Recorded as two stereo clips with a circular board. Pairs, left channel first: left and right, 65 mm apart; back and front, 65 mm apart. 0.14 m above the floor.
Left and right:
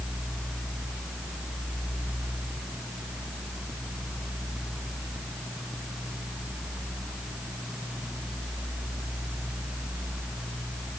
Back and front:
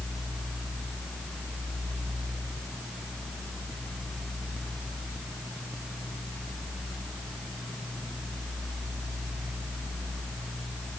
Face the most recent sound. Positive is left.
No sound to turn to.